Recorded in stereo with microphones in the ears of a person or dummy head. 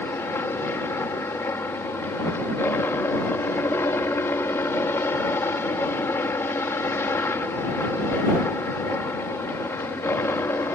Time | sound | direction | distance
0.0 | a helicopter | 15° left (ahead or behind) | ?